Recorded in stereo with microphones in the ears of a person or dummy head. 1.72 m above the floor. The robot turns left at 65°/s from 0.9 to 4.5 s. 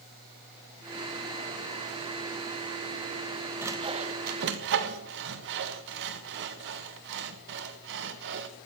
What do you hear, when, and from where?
3.6 s sawing: 10° right (ahead or behind), 1.4 m; by 8.5 s 60° right (ahead or behind), 1.4 m